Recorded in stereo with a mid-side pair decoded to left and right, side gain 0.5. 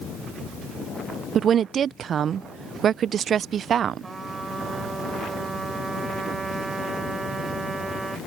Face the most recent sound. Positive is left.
turn(degrees=-25)